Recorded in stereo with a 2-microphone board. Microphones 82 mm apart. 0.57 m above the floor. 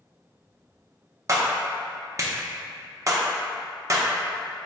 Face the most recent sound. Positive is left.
turn(degrees=-40)  # may be behind; listen again after turning